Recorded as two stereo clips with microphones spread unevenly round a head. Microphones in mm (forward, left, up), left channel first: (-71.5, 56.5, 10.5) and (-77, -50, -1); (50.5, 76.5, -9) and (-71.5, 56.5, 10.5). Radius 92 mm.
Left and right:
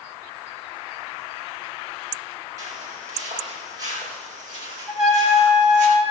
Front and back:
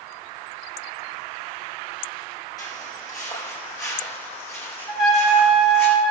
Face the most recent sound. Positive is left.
turn(degrees=-105)